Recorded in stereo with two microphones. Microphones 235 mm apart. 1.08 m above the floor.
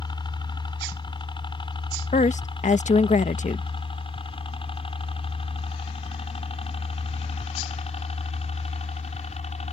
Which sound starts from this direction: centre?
A helicopter, at 0.0 s.